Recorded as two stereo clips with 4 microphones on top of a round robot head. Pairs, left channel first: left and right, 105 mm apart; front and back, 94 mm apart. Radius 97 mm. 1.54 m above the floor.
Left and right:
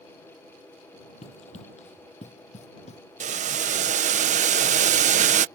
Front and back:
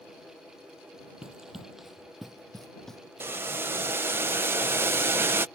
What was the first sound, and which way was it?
Running footsteps, 100° left.